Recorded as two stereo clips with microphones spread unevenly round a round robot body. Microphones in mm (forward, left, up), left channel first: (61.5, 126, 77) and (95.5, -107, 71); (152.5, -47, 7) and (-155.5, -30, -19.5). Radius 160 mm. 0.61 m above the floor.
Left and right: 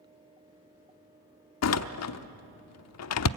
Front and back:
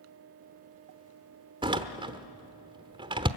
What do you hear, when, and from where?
1.6 s a door slam: 105° left, 0.8 m